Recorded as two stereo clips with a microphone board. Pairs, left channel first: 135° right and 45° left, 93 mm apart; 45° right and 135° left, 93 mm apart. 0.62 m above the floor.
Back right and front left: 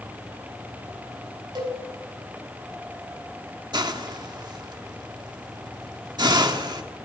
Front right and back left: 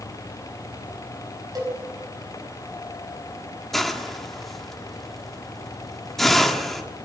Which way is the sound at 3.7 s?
45° left.